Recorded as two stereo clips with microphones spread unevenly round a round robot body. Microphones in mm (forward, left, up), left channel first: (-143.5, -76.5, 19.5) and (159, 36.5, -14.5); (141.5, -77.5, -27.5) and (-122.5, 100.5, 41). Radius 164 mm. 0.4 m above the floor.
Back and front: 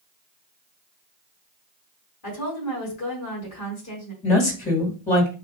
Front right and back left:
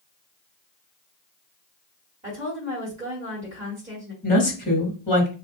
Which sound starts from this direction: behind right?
A woman speaking, at 2.2 s.